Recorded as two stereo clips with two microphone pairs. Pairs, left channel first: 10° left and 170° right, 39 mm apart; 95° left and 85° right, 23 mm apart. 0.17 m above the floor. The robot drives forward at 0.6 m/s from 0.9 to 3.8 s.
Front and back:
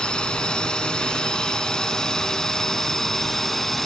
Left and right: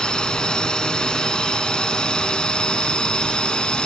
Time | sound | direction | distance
0.0 | a drone | 65° left | ?